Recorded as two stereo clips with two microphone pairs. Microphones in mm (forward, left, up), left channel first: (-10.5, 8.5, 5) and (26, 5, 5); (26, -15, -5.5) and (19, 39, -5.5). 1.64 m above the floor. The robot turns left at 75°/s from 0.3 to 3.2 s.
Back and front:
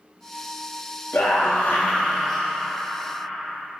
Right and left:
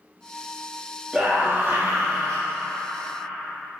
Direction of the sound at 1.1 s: Straight behind.